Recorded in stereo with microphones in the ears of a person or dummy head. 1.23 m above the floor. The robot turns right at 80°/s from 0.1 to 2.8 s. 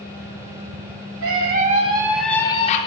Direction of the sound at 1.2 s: 80° right.